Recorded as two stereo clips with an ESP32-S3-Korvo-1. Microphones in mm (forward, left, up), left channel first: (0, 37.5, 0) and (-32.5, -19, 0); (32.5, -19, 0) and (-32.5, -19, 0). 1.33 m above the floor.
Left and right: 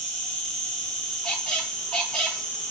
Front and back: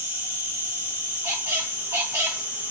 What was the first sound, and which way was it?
An insect, 130° left.